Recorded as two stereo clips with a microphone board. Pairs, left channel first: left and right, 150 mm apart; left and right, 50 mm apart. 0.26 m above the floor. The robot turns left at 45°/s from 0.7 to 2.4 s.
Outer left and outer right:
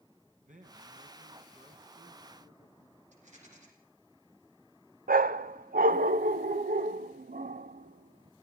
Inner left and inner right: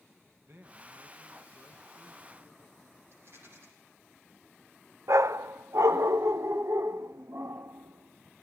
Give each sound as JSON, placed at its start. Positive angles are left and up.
{"t": 0.4, "sound": "a man speaking", "azimuth_deg": -80, "distance_m": 2.5}
{"t": 3.1, "sound": "a rattle", "side_deg": -50, "distance_m": 8.5}
{"t": 5.1, "sound": "a dog barking", "side_deg": -70, "distance_m": 0.6}